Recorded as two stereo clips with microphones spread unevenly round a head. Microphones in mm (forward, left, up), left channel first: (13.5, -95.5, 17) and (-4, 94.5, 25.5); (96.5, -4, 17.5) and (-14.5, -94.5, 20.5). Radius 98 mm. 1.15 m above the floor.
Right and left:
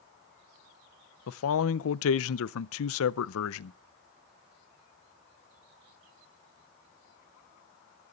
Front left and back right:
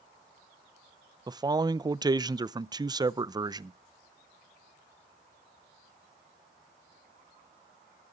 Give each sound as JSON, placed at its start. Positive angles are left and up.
{"t": 1.3, "sound": "a man speaking", "azimuth_deg": -75, "distance_m": 0.5}